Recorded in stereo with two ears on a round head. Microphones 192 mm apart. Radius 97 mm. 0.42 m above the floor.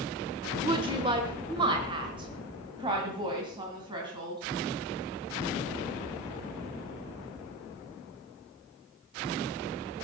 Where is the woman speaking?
20° right (ahead or behind), 0.9 m.